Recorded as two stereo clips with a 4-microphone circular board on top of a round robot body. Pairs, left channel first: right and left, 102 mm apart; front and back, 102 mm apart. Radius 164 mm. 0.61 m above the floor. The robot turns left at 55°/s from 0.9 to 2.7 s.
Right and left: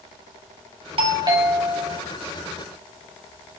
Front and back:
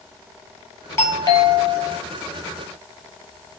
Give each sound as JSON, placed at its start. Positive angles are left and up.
{"t": 1.0, "sound": "a doorbell", "azimuth_deg": 65, "distance_m": 4.0}